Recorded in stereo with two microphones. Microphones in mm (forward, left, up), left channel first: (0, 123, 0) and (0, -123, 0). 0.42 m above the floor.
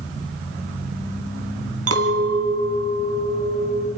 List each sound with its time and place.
1.9 s a clink: 75° right (ahead or behind), 2 m